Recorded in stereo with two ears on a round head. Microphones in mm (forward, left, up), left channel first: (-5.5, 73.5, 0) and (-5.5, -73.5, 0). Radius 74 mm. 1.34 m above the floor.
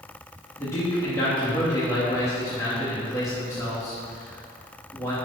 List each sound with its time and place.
0.6 s a man speaking: 20° left (ahead or behind), 2.5 m